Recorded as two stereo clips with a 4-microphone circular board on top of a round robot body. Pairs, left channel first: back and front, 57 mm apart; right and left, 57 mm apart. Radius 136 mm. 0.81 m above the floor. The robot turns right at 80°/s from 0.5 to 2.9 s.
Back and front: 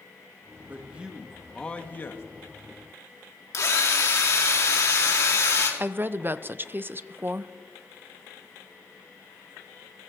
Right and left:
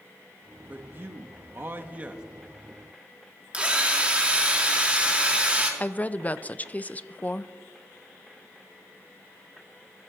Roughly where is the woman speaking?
Ahead right.